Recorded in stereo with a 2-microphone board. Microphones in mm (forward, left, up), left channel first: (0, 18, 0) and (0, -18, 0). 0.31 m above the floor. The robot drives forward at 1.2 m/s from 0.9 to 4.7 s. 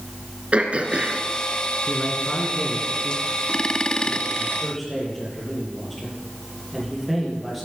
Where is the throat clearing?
35° right (ahead or behind), 2.0 m; by 1.2 s 45° right (ahead or behind), 1.7 m.